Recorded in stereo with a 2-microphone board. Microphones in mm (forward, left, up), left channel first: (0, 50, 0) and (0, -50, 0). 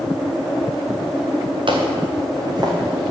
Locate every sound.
1.7 s footsteps: 55° right (ahead or behind), 2 m; by 2.7 s 40° right (ahead or behind), 3 m